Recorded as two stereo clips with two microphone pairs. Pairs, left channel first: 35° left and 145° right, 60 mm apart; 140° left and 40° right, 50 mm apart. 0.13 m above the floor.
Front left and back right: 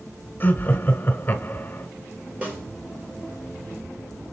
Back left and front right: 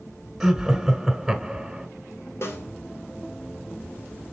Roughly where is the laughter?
Ahead left.